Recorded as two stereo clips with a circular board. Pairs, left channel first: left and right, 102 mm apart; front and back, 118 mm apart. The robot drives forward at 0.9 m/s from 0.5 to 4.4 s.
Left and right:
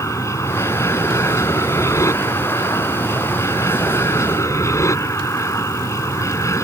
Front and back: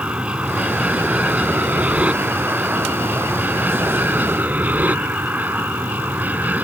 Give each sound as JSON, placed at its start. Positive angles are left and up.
{"t": 0.0, "sound": "an aircraft", "azimuth_deg": 110}